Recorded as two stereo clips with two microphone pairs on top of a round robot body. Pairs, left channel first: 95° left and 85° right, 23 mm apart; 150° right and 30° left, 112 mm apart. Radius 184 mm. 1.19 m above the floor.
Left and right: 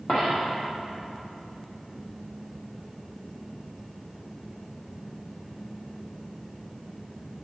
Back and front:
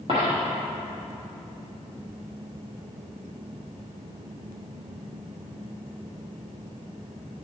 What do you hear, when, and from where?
0.1 s a dropped coin: 65° left, 0.6 m